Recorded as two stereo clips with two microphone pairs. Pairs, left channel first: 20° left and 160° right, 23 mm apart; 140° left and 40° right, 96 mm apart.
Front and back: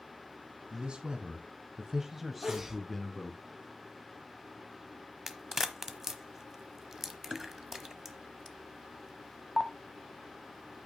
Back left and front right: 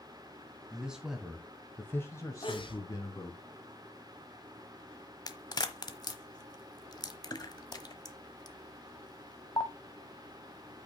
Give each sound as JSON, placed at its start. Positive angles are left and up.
{"t": 0.7, "sound": "a man speaking", "azimuth_deg": -120, "distance_m": 2.0}
{"t": 2.4, "sound": "a sneeze", "azimuth_deg": 130, "distance_m": 2.5}
{"t": 5.3, "sound": "a crack", "azimuth_deg": 130, "distance_m": 1.0}